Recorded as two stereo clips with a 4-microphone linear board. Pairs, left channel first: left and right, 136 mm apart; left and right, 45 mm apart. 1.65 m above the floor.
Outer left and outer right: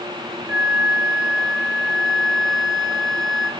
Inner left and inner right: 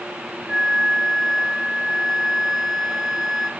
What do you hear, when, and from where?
0.5 s a flute: centre (ahead or behind), 1.1 m